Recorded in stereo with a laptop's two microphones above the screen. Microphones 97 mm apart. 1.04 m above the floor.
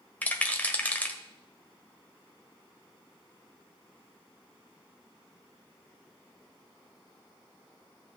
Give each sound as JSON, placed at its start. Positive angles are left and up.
{"t": 0.2, "sound": "a rattle", "side_deg": 15, "distance_m": 1.4}